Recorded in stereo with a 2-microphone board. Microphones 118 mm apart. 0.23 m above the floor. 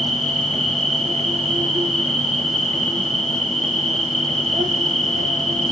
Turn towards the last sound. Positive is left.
turn(degrees=-65)  # may be behind; listen again after turning